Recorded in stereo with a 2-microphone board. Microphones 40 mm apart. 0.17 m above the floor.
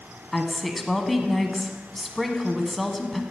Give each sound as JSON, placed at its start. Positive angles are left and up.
{"t": 0.3, "sound": "a woman speaking", "side_deg": 5, "distance_m": 1.0}